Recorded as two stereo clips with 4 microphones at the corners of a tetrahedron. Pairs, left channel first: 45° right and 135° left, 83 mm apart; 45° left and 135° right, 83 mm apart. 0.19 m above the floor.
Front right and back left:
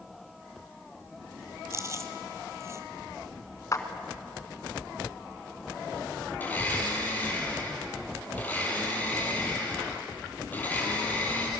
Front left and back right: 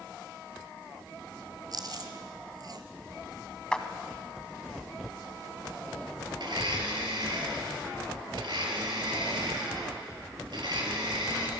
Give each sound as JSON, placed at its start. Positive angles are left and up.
{"t": 1.7, "sound": "chewing", "azimuth_deg": -170, "distance_m": 1.4}
{"t": 3.7, "sound": "a clap", "azimuth_deg": -30, "distance_m": 1.4}
{"t": 6.4, "sound": "a blender", "azimuth_deg": -115, "distance_m": 3.5}